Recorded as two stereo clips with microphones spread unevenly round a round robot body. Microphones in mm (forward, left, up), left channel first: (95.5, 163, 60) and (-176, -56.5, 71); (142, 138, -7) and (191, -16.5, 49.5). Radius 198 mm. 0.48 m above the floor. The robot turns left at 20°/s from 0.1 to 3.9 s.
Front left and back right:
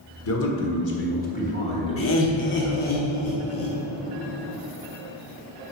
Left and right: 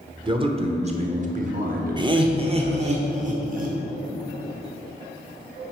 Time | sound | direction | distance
0.2 | a man speaking | straight ahead | 1.4 m
2.0 | laughter | 5° left | 1.1 m